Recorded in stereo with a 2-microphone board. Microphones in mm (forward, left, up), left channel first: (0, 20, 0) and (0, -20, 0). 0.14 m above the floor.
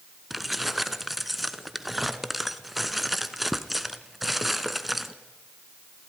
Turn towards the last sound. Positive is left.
turn(degrees=-5)  # may be behind; listen again after turning